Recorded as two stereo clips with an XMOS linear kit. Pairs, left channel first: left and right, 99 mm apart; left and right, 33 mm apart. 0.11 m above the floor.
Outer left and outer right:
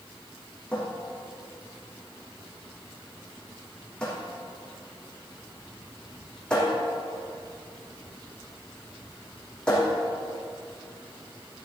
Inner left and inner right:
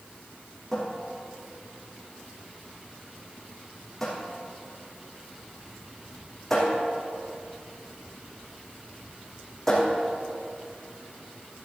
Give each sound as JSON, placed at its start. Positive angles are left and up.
{"t": 0.7, "sound": "a cupboard door", "side_deg": 10, "distance_m": 3.5}